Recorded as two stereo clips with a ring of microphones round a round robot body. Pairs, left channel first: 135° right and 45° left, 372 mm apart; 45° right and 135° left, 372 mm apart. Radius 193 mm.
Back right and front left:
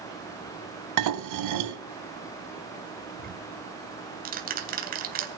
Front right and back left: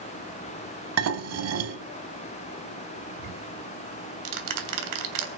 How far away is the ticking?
About 3 m.